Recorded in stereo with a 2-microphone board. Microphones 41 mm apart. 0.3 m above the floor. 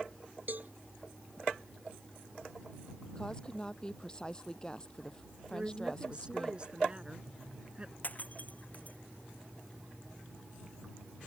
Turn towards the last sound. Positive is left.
turn(degrees=45)  # may be behind; listen again after turning